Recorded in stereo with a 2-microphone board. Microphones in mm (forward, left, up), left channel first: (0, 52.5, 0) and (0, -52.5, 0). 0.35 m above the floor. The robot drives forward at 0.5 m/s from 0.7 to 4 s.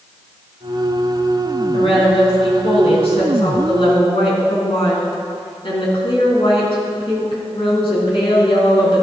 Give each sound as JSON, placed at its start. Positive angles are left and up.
{"t": 1.7, "sound": "a woman speaking", "side_deg": 70, "distance_m": 3.5}